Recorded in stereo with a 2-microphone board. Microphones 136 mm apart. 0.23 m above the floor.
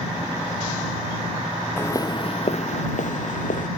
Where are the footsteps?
15° left (ahead or behind); by 3.7 s 75° left (ahead or behind).